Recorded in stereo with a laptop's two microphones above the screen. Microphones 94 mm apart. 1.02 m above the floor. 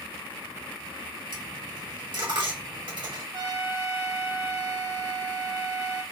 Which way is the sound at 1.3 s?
55° right (ahead or behind).